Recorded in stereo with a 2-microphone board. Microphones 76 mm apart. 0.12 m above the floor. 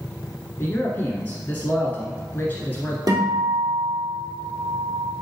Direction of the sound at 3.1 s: 55° right (ahead or behind).